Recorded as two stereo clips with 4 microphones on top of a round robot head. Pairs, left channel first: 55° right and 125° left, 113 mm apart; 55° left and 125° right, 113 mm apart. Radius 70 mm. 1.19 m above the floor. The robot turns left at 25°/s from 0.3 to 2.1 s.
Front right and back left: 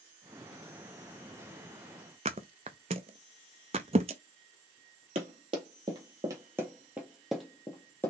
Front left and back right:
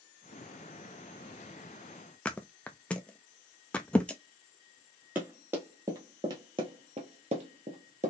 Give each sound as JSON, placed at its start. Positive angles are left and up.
{"t": 2.2, "sound": "a thud", "azimuth_deg": 130, "distance_m": 0.5}
{"t": 5.2, "sound": "running footsteps", "azimuth_deg": 160, "distance_m": 1.8}